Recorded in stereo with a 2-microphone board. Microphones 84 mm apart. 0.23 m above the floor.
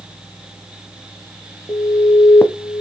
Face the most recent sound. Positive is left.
turn(degrees=30)  # may be behind; listen again after turning